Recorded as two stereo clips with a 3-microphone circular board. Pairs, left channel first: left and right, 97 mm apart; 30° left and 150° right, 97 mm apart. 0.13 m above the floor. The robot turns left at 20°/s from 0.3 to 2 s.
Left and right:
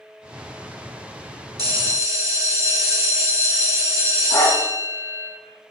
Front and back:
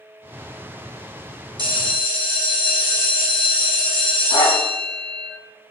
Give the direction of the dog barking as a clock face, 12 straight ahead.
10 o'clock.